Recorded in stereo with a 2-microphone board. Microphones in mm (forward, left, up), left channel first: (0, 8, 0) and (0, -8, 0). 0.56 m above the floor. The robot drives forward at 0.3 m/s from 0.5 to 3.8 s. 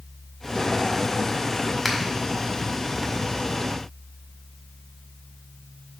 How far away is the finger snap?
About 1.8 m.